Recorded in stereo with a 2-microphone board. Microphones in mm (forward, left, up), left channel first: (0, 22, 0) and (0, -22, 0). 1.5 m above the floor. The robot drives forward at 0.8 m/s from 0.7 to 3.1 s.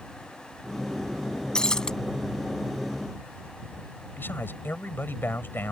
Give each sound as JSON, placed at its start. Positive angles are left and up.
{"t": 1.6, "sound": "breaking glass", "side_deg": 15}
{"t": 4.2, "sound": "a man speaking", "side_deg": 55}